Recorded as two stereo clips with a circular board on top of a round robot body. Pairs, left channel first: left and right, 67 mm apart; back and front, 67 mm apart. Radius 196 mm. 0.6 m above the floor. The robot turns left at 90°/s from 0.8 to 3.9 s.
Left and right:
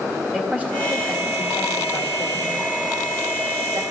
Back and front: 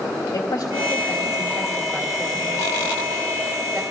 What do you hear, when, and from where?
0.3 s a woman speaking: 160° right, 2 m; by 3.8 s 70° right, 2 m